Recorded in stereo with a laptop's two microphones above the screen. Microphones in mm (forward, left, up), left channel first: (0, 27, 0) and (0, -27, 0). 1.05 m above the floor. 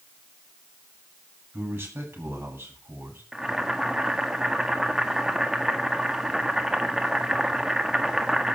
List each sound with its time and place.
1.5 s a man speaking: 50° right (ahead or behind), 9.5 m
3.3 s boiling: 10° right (ahead or behind), 1.7 m